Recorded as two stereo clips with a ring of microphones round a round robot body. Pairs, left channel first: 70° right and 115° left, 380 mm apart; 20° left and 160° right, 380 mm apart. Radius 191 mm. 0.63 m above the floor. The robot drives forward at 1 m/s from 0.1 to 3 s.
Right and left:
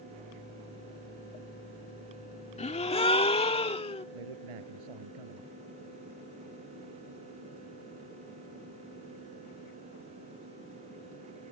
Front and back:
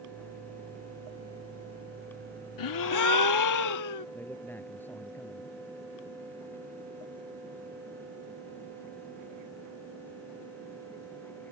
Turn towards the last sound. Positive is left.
turn(degrees=110)